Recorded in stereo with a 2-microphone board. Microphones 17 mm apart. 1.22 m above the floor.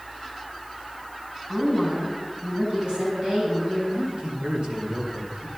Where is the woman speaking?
65° right (ahead or behind), 8 m.